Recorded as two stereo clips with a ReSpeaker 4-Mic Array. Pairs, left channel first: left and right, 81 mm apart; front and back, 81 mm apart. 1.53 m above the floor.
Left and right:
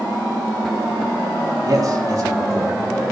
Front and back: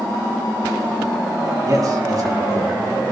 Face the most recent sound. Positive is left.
turn(degrees=-140)